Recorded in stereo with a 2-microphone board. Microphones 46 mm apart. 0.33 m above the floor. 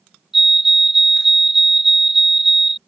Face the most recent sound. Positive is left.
turn(degrees=-5)  # may be behind; listen again after turning